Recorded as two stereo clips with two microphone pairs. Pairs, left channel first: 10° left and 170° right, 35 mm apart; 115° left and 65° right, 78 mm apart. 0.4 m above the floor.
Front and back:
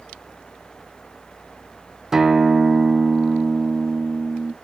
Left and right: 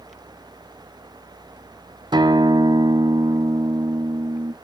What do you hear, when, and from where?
2.1 s a guitar: 90° right, 0.9 m